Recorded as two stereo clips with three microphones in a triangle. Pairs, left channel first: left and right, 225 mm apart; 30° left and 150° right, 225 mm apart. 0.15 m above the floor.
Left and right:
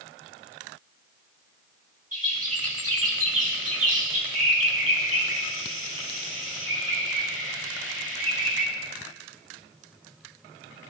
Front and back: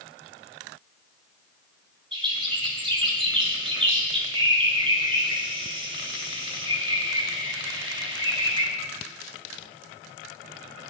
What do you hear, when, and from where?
2.1 s a bird: 85° right, 5 m